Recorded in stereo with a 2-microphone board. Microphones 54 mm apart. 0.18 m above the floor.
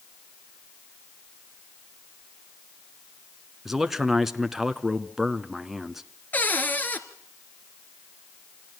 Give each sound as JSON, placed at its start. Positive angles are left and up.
{"t": 3.6, "sound": "a man speaking", "side_deg": -5, "distance_m": 1.6}
{"t": 6.3, "sound": "a cupboard door", "side_deg": 30, "distance_m": 2.0}